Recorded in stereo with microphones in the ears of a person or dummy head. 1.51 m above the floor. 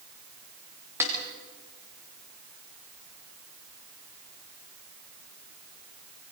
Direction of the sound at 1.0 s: 15° right (ahead or behind).